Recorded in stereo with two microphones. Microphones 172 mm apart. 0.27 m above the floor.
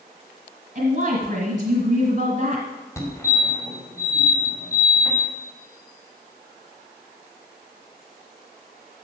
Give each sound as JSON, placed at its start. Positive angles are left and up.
{"t": 0.8, "sound": "a woman speaking", "side_deg": -50, "distance_m": 1.5}
{"t": 3.0, "sound": "a fire alarm", "side_deg": 15, "distance_m": 1.9}